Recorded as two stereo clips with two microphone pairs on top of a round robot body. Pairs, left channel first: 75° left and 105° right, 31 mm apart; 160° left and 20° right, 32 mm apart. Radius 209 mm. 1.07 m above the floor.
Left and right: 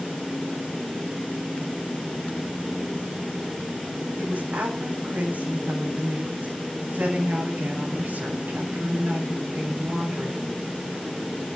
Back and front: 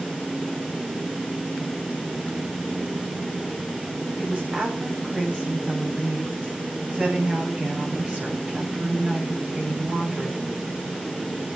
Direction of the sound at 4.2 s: 70° right.